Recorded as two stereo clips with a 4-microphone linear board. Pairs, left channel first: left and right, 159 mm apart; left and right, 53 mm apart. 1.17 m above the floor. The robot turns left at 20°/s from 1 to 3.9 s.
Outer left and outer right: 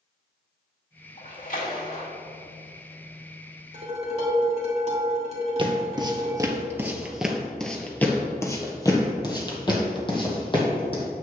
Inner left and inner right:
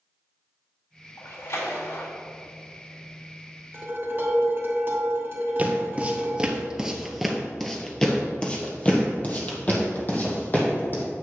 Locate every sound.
1.2 s a splash: 50° left (ahead or behind), 2.5 m; by 2.1 s 70° left (ahead or behind), 2.5 m
3.7 s dishes clattering: 45° right (ahead or behind), 2.5 m
5.6 s footsteps: 30° right (ahead or behind), 1.4 m; by 11.0 s 35° left (ahead or behind), 2.5 m